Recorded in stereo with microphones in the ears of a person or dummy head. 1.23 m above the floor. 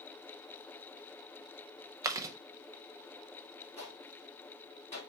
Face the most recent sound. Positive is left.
turn(degrees=30)  # may be behind; listen again after turning